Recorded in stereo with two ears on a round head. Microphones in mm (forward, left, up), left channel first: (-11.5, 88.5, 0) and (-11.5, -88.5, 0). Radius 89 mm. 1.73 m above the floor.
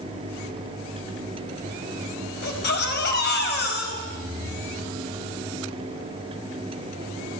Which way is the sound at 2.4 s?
60° left (ahead or behind).